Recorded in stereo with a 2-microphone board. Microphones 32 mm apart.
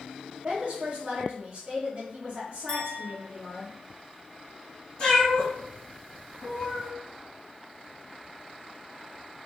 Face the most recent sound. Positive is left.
turn(degrees=30)  # may be behind; listen again after turning